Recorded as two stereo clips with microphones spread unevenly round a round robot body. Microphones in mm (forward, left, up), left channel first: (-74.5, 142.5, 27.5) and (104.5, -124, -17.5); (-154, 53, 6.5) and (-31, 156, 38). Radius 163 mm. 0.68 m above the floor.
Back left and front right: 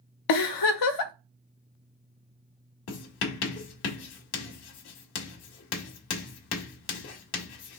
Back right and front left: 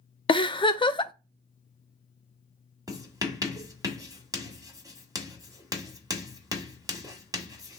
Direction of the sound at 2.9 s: 115° left.